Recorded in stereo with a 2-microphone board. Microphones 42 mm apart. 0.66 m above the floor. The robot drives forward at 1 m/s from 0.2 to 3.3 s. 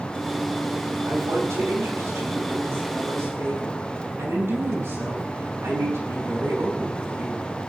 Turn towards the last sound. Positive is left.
turn(degrees=-75)  # may be behind; listen again after turning